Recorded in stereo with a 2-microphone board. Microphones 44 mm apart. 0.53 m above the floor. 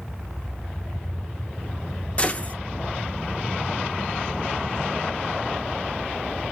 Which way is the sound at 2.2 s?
30° left (ahead or behind).